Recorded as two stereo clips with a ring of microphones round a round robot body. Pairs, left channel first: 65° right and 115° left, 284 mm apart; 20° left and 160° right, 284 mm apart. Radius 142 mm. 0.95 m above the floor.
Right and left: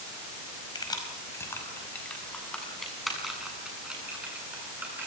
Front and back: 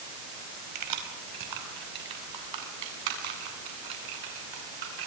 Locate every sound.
0.8 s keys jangling: 145° right, 4.5 m; by 5.1 s 165° right, 10.5 m